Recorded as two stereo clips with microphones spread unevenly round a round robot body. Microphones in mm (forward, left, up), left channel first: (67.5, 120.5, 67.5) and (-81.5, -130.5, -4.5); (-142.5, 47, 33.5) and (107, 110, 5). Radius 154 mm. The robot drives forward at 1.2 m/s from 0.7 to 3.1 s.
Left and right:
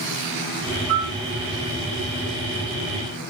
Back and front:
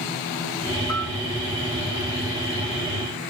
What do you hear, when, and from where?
0.9 s a piano: 160° right, 2.5 m